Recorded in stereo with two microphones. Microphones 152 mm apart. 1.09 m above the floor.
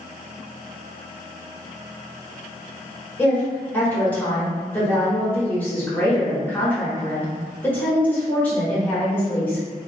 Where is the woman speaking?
10° left (ahead or behind), 1.5 m.